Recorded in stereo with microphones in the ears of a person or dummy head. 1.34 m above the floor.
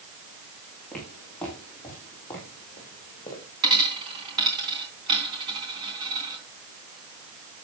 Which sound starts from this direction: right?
A dropped coin, at 3.6 s.